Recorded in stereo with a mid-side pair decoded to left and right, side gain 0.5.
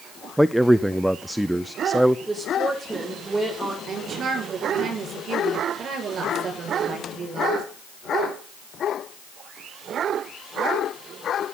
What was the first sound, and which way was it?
A man speaking, 5° right.